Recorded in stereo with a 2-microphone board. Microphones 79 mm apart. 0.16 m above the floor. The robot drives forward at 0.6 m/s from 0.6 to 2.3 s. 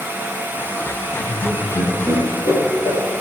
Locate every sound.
1.1 s laughter: 70° left (ahead or behind), 5.5 m; by 3.0 s 65° left (ahead or behind), 6 m